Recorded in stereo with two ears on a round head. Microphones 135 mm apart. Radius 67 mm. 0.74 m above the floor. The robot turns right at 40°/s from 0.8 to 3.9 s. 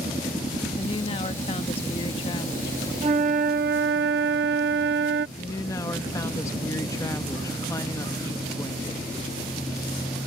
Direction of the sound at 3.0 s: 140° right.